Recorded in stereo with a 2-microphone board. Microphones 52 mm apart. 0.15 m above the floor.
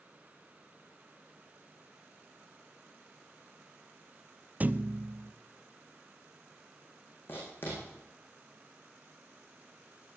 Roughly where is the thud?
Right.